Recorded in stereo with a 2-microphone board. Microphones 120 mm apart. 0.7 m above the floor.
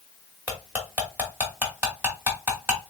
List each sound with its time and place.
0.5 s cutlery clinking: 15° right (ahead or behind), 1.3 m